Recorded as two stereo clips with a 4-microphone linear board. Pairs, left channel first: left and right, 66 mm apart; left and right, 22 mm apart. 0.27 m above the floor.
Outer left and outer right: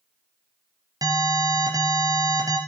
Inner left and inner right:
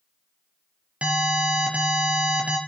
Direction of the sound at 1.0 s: 70° right (ahead or behind).